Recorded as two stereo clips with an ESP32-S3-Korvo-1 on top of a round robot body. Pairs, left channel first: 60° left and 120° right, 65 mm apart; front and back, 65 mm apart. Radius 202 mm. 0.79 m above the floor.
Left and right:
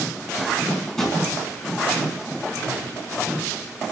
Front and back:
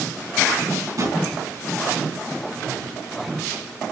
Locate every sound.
1.0 s a drawer: 145° left, 4 m